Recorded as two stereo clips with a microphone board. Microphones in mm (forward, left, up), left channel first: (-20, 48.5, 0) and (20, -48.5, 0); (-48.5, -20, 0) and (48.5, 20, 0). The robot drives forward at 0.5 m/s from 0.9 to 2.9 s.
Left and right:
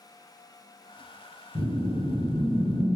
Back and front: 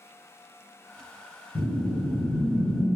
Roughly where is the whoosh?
Behind.